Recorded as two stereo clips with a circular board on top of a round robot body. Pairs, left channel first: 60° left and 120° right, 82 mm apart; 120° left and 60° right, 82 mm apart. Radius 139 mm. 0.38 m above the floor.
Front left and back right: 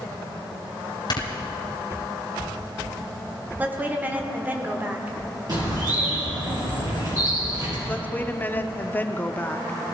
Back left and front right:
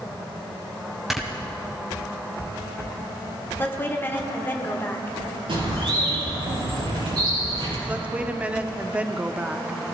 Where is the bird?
80° right, 6 m.